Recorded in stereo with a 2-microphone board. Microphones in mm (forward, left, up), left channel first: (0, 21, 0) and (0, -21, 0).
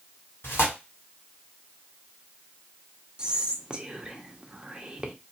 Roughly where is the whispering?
Right.